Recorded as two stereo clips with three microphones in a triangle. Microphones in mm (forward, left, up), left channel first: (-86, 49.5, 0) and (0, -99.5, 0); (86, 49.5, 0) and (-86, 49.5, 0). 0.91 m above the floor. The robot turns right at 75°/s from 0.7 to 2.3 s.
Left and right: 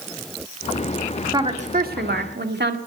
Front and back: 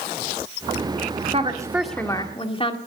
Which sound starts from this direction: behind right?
A woman speaking, at 1.3 s.